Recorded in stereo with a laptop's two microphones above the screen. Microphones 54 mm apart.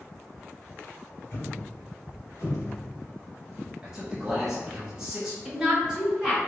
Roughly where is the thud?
Left.